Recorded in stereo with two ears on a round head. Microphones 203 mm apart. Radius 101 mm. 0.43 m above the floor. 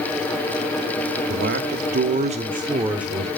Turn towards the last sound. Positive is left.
turn(degrees=0)  # may be behind; listen again after turning